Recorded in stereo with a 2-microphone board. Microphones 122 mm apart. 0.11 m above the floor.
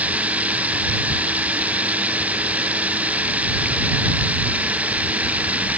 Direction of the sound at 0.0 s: 10° right (ahead or behind).